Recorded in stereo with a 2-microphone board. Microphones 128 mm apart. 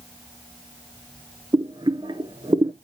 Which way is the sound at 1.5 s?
35° right (ahead or behind).